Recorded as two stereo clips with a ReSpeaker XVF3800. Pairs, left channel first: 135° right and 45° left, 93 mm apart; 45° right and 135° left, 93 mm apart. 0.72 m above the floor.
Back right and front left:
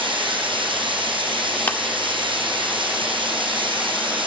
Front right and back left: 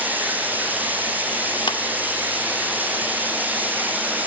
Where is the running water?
65° left, 5 m.